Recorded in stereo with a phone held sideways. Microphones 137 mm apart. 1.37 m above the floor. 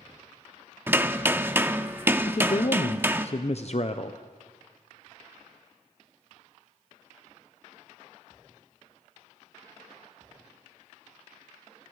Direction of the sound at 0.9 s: 15° right (ahead or behind).